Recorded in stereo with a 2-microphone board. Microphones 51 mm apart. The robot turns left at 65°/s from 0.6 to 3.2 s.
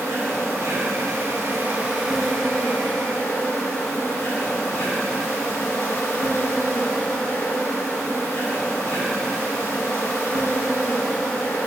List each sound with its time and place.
0.0 s an insect: 75° right, 2 m; by 11.7 s 115° left, 2 m